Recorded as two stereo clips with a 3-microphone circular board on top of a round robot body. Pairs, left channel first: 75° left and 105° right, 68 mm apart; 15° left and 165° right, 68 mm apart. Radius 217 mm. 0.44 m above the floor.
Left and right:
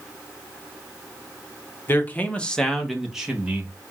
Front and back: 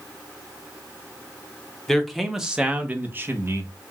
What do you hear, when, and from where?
1.9 s a man speaking: 90° left, 1.3 m; by 3.7 s 160° right, 1.5 m